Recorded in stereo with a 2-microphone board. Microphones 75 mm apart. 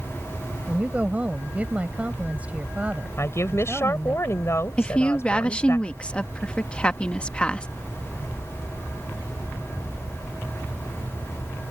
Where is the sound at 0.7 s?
20° right (ahead or behind).